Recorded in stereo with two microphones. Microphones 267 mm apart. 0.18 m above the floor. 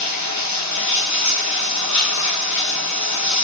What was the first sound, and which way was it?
Running water, 80° left.